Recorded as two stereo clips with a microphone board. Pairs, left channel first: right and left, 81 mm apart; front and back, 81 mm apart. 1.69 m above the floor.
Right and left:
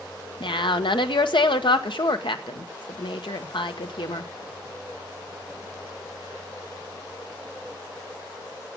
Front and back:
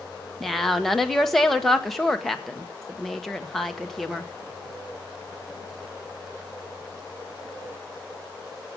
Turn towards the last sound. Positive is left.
turn(degrees=-85)